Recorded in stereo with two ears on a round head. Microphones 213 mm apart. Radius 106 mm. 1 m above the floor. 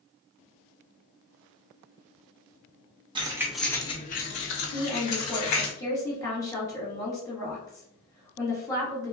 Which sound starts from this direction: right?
Keys jangling, at 3.1 s.